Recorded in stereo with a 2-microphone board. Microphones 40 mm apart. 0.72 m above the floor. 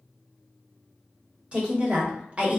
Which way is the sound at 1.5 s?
30° right (ahead or behind).